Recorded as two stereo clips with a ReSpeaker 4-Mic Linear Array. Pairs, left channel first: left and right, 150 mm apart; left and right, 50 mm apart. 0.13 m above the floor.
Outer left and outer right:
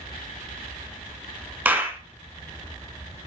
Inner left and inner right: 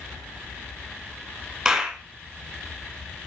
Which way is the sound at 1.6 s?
10° right (ahead or behind).